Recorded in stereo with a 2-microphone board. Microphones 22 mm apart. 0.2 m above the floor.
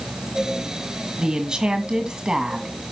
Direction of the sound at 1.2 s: 35° right (ahead or behind).